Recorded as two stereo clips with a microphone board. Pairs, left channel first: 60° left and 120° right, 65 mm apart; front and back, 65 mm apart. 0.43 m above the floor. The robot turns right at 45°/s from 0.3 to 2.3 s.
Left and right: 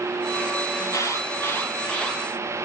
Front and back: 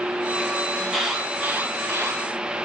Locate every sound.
0.8 s an alarm: 80° left, 9 m; by 2.2 s 145° left, 9 m